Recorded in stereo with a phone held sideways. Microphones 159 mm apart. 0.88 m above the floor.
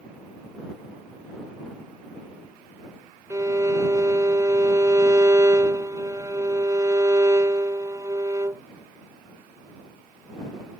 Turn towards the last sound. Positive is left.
turn(degrees=-20)  # may be behind; listen again after turning